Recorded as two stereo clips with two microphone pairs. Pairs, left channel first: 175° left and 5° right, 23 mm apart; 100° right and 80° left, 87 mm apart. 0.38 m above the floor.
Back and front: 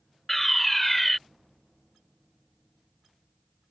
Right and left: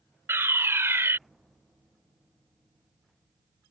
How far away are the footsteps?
No footsteps in this recording.